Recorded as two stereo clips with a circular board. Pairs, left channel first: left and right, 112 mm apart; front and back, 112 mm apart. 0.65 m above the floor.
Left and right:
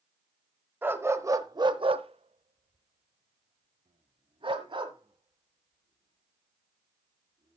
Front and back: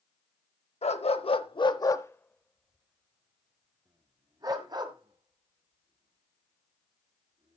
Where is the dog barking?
20° right, 1.0 m; by 7.6 s 140° right, 3 m.